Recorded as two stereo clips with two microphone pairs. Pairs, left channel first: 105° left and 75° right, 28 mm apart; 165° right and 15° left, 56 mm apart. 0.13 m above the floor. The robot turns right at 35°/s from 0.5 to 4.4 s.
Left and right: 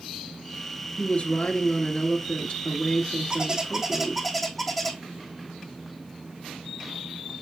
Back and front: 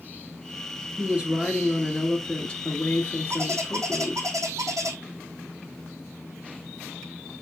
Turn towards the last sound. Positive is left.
turn(degrees=20)